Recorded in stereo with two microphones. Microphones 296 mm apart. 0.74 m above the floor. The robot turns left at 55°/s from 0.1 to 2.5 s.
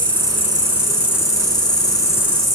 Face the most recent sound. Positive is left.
turn(degrees=45)